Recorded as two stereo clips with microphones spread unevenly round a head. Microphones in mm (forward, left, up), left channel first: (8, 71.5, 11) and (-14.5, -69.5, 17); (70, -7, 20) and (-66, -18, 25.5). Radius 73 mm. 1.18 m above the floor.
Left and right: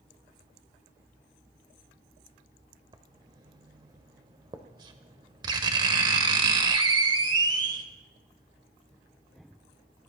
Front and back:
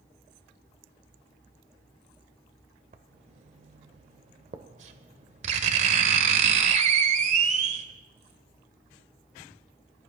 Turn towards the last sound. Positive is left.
turn(degrees=-150)